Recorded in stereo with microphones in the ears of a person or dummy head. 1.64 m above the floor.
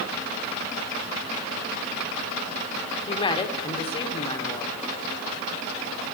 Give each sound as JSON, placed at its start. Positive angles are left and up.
{"t": 3.1, "sound": "a woman speaking", "side_deg": 30, "distance_m": 1.5}